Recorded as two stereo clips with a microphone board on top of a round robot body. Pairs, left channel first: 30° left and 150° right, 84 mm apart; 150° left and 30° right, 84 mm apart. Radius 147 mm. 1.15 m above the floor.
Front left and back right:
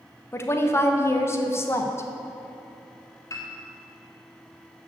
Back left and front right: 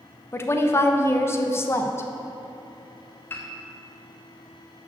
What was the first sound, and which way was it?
A woman speaking, 90° left.